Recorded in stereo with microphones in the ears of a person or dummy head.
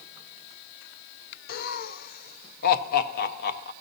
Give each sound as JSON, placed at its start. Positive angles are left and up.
{"t": 1.5, "sound": "laughter", "side_deg": 50, "distance_m": 0.7}